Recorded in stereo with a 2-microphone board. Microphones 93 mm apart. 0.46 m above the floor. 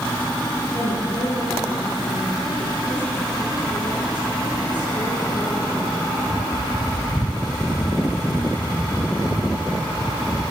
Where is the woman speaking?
55° left (ahead or behind), 9.5 m.